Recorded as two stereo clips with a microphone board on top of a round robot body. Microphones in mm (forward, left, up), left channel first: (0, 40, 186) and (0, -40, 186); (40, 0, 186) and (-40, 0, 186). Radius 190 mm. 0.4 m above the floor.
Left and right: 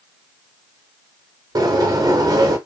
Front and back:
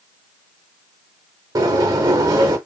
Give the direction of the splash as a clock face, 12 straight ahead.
I don't hear a splash.